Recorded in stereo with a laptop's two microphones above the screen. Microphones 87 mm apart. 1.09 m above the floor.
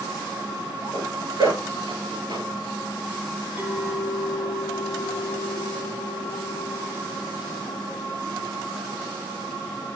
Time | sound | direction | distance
0.9 | a zipper | 55° right (ahead or behind) | 5 m
3.6 | a clink | 20° right (ahead or behind) | 1.4 m